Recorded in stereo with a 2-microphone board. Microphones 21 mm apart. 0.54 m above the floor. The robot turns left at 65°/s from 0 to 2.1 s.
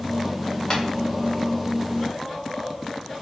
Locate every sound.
0.7 s tapping: 40° left (ahead or behind), 0.8 m